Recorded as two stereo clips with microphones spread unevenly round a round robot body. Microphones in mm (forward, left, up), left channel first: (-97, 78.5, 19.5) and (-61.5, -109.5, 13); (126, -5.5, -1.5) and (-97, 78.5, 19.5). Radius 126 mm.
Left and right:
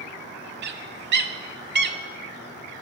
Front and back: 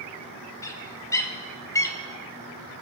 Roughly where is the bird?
Right.